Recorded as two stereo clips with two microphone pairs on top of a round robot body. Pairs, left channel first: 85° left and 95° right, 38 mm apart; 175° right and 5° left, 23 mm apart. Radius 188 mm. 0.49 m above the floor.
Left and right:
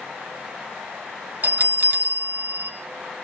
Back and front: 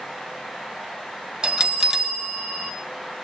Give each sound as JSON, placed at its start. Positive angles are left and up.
{"t": 1.4, "sound": "a bell", "azimuth_deg": -50, "distance_m": 2.0}